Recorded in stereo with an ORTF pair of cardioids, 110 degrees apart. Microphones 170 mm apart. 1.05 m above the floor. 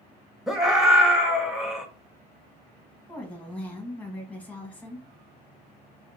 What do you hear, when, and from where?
0.5 s a scream: 5° right, 1.1 m
3.1 s a woman speaking: 10° left, 1.2 m